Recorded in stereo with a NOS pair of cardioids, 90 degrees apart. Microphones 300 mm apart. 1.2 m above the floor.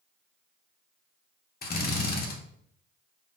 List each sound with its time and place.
1.6 s a drill: 30° left, 0.8 m